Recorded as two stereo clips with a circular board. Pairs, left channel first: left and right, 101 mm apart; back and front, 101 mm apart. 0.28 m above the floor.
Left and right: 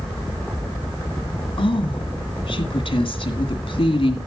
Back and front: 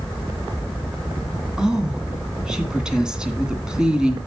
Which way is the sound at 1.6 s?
80° left.